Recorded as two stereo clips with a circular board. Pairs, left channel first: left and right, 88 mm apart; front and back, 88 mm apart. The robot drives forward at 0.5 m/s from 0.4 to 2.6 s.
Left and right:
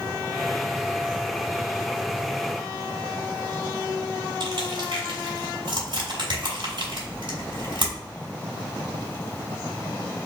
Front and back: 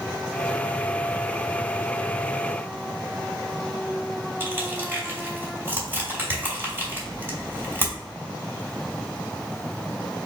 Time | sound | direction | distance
4.4 | crushing | 115° right | 1.6 m